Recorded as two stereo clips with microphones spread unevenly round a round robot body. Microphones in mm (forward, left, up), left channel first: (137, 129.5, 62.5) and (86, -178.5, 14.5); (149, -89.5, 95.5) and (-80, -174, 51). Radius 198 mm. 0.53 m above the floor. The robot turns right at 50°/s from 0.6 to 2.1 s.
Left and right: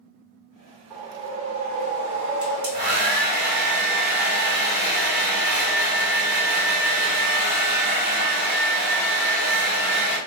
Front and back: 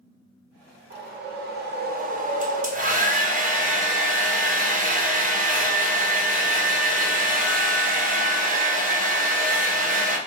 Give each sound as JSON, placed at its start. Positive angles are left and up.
{"t": 0.9, "sound": "a whoosh", "azimuth_deg": 175, "distance_m": 1.1}
{"t": 2.4, "sound": "a hair dryer", "azimuth_deg": -130, "distance_m": 1.2}